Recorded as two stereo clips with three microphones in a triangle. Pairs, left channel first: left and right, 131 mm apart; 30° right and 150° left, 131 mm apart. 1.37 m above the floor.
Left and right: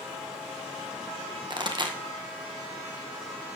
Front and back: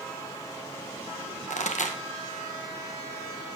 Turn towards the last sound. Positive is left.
turn(degrees=-35)